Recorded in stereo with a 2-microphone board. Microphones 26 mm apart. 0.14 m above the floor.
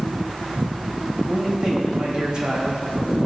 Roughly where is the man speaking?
Right.